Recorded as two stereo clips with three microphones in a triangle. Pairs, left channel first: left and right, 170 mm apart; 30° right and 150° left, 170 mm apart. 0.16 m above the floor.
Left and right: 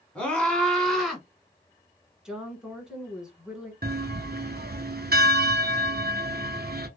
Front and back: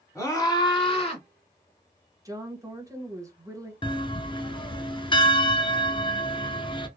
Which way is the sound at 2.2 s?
170° right.